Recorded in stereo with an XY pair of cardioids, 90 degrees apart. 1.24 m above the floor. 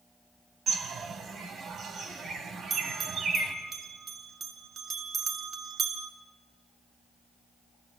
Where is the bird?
60° right, 2.5 m.